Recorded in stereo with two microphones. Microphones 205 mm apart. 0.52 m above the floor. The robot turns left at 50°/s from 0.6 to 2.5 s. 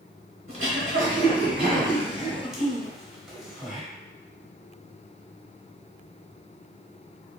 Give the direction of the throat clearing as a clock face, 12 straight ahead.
3 o'clock.